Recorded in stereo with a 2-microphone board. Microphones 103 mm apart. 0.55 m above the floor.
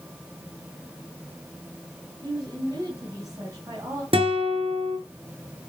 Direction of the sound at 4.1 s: 65° right (ahead or behind).